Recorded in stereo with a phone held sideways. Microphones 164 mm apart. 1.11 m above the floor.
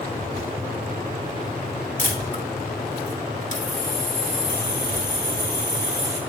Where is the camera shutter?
55° left (ahead or behind), 1.6 m.